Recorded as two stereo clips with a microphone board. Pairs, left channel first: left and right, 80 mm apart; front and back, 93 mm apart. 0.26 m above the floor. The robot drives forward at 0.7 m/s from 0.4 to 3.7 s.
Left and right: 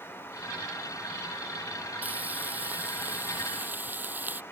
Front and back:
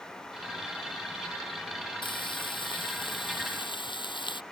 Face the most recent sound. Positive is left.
turn(degrees=-25)